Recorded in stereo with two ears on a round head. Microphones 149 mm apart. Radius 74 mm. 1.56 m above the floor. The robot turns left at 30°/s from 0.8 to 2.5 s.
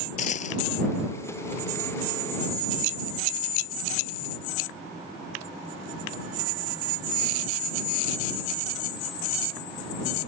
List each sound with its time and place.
0.2 s a dropped coin: 45° left (ahead or behind)